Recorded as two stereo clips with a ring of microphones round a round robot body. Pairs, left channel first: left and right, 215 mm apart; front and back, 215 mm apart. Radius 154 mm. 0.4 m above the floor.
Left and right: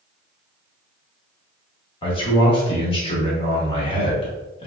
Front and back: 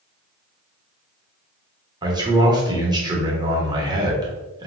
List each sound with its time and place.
2.0 s a man speaking: 130° left, 1.0 m